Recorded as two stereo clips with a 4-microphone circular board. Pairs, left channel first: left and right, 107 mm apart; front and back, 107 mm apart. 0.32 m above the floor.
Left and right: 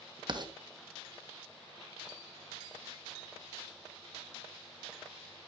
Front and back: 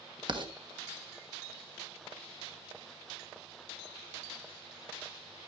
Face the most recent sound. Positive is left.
turn(degrees=-135)